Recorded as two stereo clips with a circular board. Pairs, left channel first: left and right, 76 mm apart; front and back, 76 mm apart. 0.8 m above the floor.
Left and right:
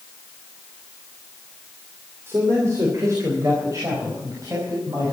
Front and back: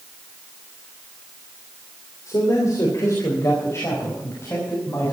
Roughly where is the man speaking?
Ahead right.